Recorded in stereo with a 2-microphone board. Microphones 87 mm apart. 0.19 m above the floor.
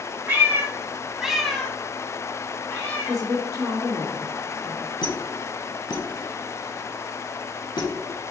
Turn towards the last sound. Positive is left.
turn(degrees=55)  # may be behind; listen again after turning